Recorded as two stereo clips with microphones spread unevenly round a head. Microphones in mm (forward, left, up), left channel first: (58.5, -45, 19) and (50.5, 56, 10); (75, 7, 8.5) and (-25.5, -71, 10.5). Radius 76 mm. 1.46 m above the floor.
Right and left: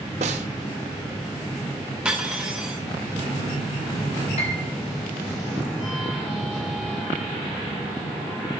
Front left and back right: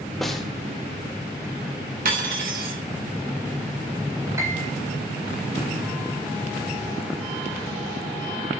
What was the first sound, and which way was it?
A snare drum, 125° left.